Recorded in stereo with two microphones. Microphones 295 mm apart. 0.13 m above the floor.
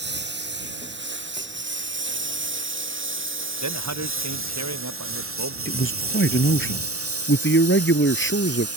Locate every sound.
0.0 s a lawn mower: 40° right (ahead or behind); by 8.8 s 60° right (ahead or behind)
3.6 s a man speaking: 80° right
5.7 s a man speaking: 45° left (ahead or behind)